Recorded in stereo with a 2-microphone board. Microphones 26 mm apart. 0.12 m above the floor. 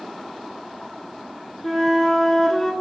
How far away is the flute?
About 0.6 m.